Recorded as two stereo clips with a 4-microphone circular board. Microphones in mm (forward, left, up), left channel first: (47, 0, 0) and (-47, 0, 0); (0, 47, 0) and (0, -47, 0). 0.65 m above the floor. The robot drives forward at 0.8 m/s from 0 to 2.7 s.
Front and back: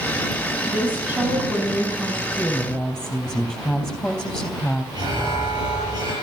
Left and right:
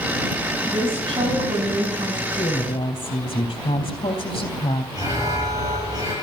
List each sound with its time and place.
0.7 s a woman speaking: 105° right, 5.5 m; by 2.2 s 115° right, 6 m
2.4 s a woman speaking: 80° left, 3 m; by 4.8 s 85° left, 3 m
4.9 s an alarm: 140° right, 9.5 m